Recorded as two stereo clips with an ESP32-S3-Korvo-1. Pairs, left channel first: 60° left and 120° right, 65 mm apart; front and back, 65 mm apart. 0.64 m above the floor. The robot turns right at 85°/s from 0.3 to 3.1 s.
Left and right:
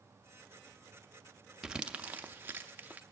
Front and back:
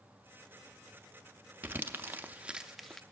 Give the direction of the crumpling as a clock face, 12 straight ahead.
7 o'clock.